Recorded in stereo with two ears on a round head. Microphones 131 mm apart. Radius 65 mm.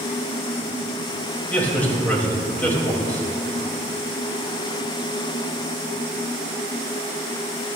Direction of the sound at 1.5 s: 10° left (ahead or behind).